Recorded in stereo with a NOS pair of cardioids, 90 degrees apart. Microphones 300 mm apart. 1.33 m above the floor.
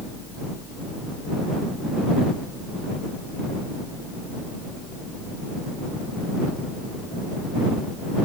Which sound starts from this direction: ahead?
A fan, at 0.0 s.